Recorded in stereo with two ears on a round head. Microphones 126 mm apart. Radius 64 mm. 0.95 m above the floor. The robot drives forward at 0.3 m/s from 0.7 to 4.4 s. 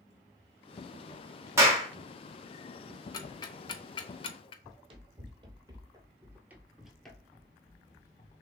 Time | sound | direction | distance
1.6 | a clap | 20° right (ahead or behind) | 1.2 m
3.1 | ticking | 25° left (ahead or behind) | 0.8 m
4.6 | running footsteps | 40° right (ahead or behind) | 1.4 m